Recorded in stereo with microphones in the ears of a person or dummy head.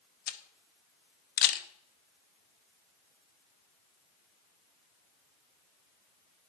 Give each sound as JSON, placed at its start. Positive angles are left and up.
{"t": 0.3, "sound": "a camera shutter", "side_deg": 50, "distance_m": 0.9}